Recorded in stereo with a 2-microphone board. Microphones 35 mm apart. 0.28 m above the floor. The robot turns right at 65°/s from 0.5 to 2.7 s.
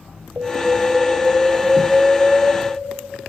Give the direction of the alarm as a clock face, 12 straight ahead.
4 o'clock.